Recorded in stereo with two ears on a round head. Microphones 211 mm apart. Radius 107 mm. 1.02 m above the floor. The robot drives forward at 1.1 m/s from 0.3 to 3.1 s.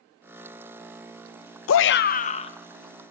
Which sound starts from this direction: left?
A shout, at 1.7 s.